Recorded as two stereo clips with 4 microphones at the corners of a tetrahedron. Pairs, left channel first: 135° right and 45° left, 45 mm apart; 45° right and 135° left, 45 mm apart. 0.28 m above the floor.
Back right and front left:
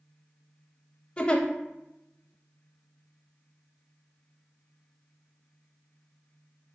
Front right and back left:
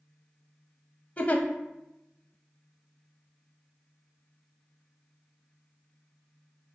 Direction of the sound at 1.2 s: 80° right.